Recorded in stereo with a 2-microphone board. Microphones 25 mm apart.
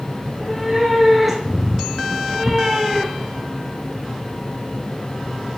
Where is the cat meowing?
10° right (ahead or behind), 2.5 m.